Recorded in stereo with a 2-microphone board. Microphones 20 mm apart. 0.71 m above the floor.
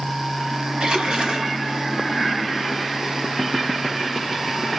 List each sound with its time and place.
0.8 s a splash: 60° right (ahead or behind), 1.4 m